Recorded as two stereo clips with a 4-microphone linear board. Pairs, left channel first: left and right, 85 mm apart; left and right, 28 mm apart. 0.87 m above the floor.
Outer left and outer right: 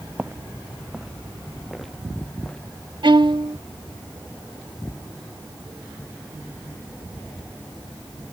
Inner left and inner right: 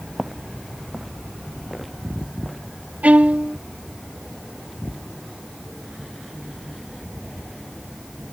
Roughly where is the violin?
Right.